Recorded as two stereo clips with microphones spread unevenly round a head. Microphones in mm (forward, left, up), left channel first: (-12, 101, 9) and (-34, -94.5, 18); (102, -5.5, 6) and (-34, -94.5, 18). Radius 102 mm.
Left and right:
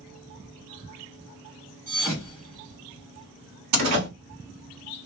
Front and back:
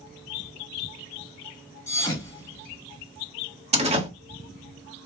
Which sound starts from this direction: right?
A door slam, at 3.7 s.